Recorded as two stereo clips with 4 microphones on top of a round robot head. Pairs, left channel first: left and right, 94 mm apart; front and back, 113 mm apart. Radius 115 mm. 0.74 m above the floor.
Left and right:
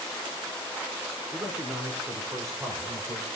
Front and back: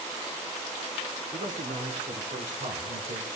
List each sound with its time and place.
1.3 s a man speaking: 155° right, 3.5 m; by 3.3 s 145° right, 5 m